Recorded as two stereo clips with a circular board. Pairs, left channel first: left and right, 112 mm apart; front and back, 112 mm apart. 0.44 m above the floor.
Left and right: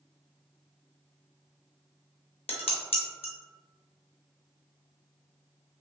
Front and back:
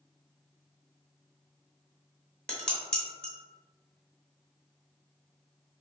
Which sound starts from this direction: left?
Dishes clattering, at 2.5 s.